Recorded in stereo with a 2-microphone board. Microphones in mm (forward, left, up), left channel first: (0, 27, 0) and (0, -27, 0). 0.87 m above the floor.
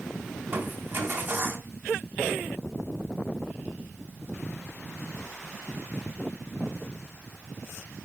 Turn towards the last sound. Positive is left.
turn(degrees=-40)  # may be behind; listen again after turning